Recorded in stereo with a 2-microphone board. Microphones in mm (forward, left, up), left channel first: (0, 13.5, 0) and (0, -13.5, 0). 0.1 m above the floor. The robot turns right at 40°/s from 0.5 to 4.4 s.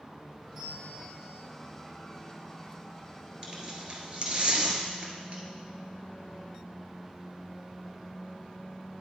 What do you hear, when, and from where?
0.6 s a bell: 135° right, 2.5 m; by 1.4 s 100° right, 2.5 m
3.4 s tearing paper: 35° right (ahead or behind), 1.3 m; by 5.4 s 45° right (ahead or behind), 1.3 m